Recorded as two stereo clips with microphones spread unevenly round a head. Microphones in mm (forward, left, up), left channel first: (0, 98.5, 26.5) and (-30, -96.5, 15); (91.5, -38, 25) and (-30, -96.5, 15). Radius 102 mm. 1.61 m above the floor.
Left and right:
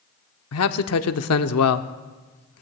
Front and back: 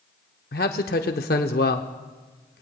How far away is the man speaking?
About 0.7 m.